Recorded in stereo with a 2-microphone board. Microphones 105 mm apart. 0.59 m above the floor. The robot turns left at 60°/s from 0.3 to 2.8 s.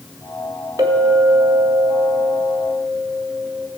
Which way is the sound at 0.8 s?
35° right.